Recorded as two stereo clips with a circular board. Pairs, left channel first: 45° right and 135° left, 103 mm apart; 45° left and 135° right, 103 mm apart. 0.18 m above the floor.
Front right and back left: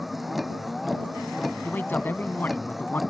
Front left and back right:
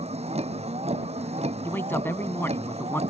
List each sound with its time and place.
0.0 s a vehicle: 135° right
1.6 s a man speaking: 5° left